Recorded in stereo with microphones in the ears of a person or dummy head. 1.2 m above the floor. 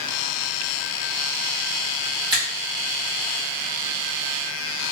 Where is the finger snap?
25° right (ahead or behind), 1.5 m.